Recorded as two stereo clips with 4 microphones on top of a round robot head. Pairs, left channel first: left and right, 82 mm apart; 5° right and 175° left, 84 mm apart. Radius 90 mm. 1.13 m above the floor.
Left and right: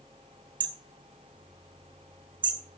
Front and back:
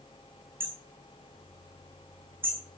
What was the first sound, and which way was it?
Hammering, 115° right.